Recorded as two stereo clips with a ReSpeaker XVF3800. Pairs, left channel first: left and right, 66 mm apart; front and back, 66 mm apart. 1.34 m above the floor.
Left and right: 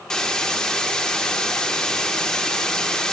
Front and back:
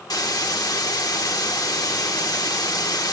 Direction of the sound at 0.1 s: 10° left.